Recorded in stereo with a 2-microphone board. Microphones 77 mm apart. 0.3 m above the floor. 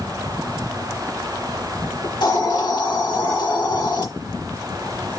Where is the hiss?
80° left, 5.5 m.